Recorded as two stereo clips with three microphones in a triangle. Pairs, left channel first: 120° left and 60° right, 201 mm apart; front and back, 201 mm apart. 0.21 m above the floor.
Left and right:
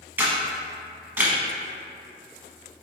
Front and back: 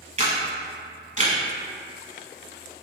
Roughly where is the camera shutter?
Behind right.